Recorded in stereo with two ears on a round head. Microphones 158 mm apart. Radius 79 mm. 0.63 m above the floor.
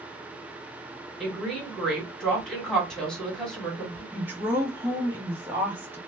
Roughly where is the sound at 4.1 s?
Centre.